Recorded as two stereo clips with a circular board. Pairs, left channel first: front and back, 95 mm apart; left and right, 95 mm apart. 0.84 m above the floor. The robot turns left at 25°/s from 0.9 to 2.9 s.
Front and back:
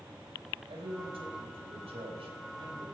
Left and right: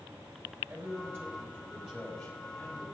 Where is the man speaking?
150° right, 4 m; by 2.9 s 160° left, 4 m.